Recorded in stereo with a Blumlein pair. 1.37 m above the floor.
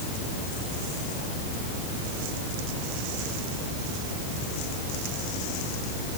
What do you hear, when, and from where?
Only background noise.